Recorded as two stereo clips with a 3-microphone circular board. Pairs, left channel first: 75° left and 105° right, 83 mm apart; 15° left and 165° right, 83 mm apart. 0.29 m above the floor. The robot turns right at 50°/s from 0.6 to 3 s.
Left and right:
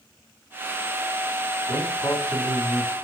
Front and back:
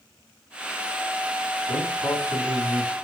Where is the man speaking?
35° left, 1.9 m; by 3.0 s 100° left, 1.9 m.